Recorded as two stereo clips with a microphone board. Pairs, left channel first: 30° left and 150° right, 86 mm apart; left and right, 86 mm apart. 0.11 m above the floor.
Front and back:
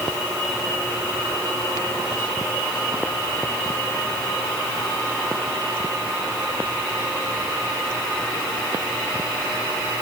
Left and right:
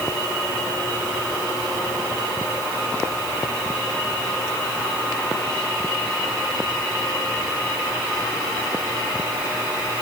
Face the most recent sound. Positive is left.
No sound to turn to.